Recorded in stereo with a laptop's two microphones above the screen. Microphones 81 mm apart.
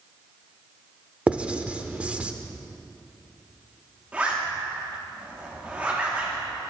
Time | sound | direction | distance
1.3 | writing | 15° right (ahead or behind) | 1.0 m
4.1 | a zipper | 15° right (ahead or behind) | 2.5 m